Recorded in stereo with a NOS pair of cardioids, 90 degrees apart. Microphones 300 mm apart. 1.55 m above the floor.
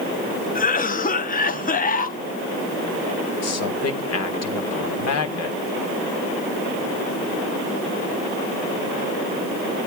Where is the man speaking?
55° left, 1.7 m.